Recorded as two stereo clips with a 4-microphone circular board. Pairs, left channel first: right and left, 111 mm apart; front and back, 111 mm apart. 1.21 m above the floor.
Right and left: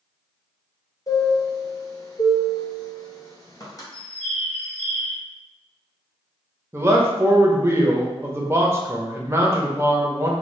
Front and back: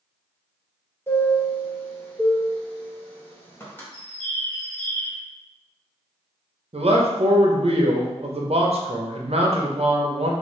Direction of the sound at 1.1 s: 60° right.